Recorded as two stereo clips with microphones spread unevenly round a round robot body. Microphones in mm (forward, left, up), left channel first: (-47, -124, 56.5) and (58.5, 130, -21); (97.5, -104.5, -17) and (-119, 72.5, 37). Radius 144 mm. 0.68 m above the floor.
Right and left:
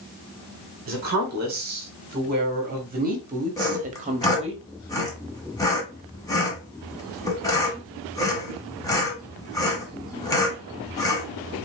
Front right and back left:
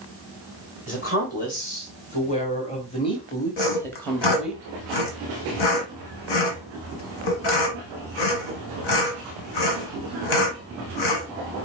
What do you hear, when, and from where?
0.9 s a woman speaking: 20° left, 2.5 m; by 4.6 s 40° left, 1.0 m
3.6 s sawing: 40° right, 1.4 m